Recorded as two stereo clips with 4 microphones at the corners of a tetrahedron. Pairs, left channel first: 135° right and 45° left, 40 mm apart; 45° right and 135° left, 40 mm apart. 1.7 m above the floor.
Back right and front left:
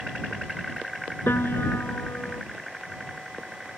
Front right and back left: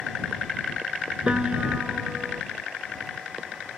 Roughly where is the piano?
Behind.